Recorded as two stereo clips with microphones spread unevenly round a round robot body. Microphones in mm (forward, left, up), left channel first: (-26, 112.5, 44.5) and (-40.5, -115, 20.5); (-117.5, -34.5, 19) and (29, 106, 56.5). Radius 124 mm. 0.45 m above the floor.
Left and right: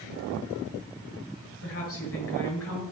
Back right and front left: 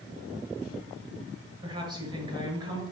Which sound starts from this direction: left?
A woman speaking, at 1.6 s.